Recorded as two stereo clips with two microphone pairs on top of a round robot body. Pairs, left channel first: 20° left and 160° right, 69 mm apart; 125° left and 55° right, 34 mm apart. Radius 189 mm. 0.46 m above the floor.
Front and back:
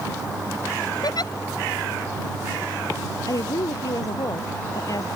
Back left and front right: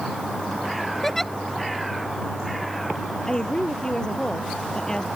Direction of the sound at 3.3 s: 55° left.